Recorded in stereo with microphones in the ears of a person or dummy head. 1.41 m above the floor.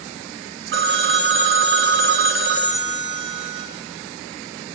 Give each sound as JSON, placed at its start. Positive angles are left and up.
{"t": 0.7, "sound": "a phone ringing", "side_deg": -60, "distance_m": 0.7}